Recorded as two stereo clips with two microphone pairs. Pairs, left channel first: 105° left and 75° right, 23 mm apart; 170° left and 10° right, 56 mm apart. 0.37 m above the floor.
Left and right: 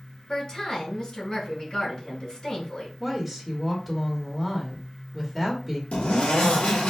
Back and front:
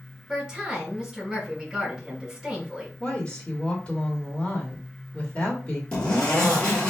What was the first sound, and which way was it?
A woman speaking, 65° left.